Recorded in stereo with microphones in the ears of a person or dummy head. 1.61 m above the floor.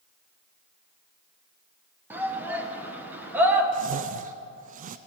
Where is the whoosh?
45° right (ahead or behind), 0.5 m.